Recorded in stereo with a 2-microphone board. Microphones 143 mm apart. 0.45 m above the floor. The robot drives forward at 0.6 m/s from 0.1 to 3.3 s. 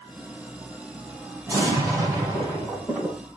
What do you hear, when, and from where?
1.5 s an explosion: 20° right (ahead or behind), 5.5 m